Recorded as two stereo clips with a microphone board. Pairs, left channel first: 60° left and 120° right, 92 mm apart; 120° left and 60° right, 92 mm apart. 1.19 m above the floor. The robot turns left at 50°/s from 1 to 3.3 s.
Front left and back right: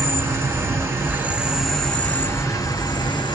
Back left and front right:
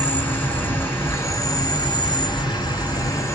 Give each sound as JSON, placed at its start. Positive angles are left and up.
{"t": 0.0, "sound": "an insect", "azimuth_deg": -175, "distance_m": 1.6}